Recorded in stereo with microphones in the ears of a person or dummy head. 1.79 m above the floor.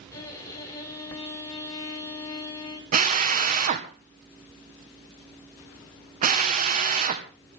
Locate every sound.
0.1 s a violin: 15° left (ahead or behind), 6 m
2.9 s a drill: 45° right (ahead or behind), 1.8 m